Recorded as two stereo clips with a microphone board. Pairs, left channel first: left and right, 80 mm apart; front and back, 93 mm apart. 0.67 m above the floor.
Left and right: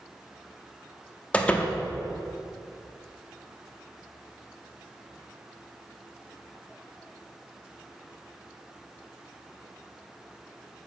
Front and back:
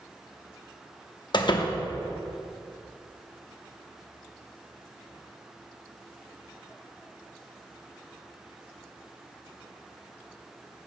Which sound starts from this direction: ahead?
A door slam, at 1.3 s.